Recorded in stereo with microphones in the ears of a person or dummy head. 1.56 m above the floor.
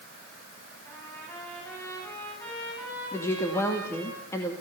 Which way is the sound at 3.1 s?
15° left (ahead or behind).